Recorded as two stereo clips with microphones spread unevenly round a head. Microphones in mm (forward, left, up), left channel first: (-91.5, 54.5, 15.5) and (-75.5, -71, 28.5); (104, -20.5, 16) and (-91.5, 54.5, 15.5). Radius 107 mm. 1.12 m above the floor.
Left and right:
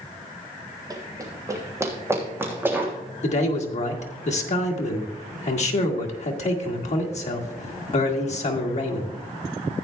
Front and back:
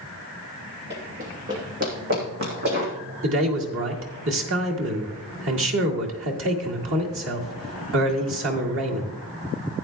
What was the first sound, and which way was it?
Running footsteps, 135° right.